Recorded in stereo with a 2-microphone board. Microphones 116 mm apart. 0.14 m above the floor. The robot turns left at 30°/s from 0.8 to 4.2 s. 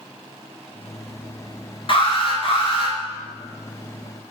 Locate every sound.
1.9 s an alarm: 110° left, 2 m; by 3.0 s 80° left, 2 m